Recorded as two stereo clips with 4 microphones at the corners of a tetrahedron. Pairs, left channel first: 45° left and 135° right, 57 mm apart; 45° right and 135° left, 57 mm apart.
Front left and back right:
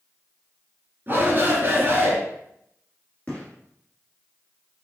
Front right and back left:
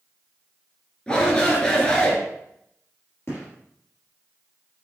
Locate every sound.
1.1 s a shout: 100° right, 2 m
3.3 s a gunshot: 20° right, 2 m